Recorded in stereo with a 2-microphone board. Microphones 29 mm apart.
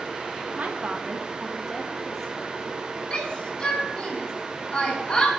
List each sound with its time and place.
0.6 s a woman speaking: 55° right (ahead or behind), 1.6 m; by 3.0 s 25° left (ahead or behind), 3.5 m
3.1 s a shout: 30° left (ahead or behind), 8 m